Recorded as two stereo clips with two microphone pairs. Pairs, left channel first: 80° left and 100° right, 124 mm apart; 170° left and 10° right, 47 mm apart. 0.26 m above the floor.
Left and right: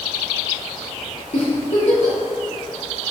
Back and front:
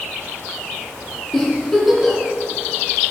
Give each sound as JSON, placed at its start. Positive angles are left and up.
{"t": 1.3, "sound": "a giggle", "azimuth_deg": 85, "distance_m": 3.0}